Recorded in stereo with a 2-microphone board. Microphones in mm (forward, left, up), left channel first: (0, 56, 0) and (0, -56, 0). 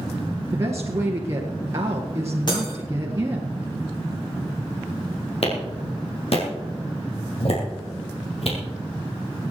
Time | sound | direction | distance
0.5 | a woman speaking | 30° right (ahead or behind) | 1.6 m
2.5 | breaking glass | 40° left (ahead or behind) | 6 m
5.4 | a clap | 60° left (ahead or behind) | 3.5 m